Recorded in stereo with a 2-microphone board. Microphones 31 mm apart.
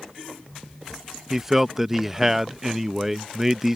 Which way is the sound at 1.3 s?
10° right (ahead or behind).